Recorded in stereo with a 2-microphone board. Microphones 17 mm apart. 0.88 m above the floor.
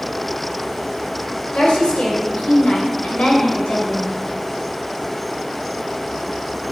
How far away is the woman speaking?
About 3 m.